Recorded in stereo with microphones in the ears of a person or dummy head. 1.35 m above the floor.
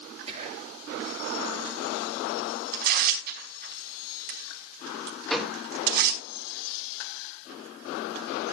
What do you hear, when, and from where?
0.3 s whispering: 35° right (ahead or behind), 8.5 m
2.7 s tearing paper: 55° right (ahead or behind), 5 m
5.3 s a gunshot: centre (ahead or behind), 2.5 m